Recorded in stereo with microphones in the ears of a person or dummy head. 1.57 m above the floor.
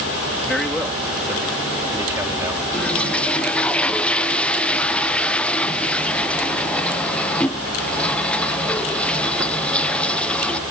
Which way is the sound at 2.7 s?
10° left (ahead or behind).